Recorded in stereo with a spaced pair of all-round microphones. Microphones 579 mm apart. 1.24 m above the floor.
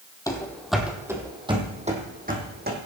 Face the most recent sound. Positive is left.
turn(degrees=-20)  # may be behind; listen again after turning